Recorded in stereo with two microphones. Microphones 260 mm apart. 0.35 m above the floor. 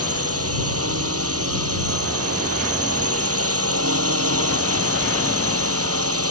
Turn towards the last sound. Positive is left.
turn(degrees=-60)  # may be behind; listen again after turning